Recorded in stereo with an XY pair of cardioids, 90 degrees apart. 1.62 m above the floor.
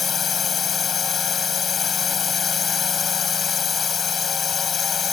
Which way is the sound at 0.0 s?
50° left.